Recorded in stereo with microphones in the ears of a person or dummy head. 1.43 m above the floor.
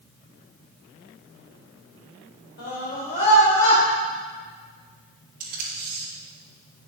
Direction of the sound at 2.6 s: 50° left (ahead or behind).